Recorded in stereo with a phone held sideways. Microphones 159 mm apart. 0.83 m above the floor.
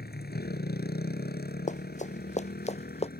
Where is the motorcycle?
90° left; by 3.2 s 75° left (ahead or behind).